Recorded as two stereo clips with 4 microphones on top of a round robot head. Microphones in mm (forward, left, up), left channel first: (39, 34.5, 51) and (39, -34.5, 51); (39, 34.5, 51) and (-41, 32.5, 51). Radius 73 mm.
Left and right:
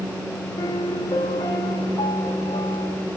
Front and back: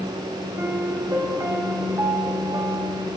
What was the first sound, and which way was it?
A piano, 125° left.